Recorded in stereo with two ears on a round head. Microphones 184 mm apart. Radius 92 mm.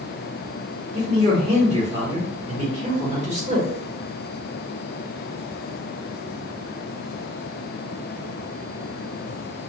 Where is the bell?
I don't hear a bell.